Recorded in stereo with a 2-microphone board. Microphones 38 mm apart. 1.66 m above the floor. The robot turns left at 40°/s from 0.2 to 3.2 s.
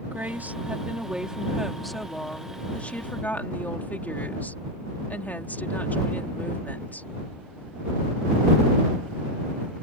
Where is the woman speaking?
115° right; by 7.1 s 125° left.